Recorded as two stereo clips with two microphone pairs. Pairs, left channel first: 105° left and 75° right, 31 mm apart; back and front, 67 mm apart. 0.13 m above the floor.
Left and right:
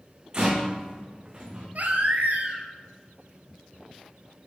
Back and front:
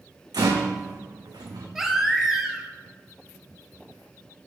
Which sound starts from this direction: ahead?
A rattle, at 0.3 s.